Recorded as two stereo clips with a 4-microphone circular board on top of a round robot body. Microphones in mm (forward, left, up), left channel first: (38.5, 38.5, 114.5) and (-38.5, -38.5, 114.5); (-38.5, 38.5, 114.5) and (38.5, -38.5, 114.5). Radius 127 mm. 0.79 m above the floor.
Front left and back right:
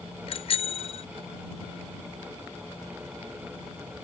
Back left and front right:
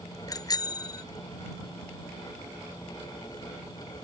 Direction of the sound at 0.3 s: 80° left.